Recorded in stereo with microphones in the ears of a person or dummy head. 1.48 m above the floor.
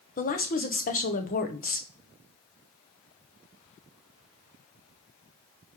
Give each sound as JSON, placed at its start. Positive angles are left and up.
{"t": 0.2, "sound": "a woman speaking", "side_deg": 45, "distance_m": 1.0}